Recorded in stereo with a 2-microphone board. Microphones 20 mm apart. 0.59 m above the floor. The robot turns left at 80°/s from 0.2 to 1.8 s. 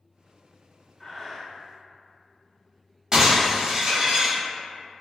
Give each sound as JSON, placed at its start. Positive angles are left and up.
{"t": 1.0, "sound": "breathing", "azimuth_deg": 115, "distance_m": 0.8}
{"t": 3.1, "sound": "breaking glass", "side_deg": -30, "distance_m": 1.2}